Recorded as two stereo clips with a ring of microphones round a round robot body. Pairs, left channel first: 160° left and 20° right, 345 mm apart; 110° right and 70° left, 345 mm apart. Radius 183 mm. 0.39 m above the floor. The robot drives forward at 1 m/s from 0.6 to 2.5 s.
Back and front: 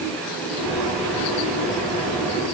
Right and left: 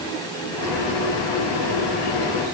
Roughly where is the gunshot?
No gunshot in this recording.